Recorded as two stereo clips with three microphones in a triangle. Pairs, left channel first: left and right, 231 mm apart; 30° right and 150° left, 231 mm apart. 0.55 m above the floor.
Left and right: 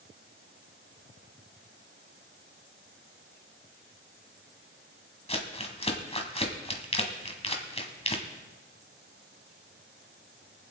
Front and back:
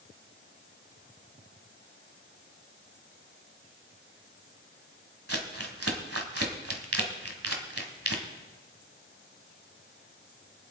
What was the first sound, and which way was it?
Crumpling, 150° left.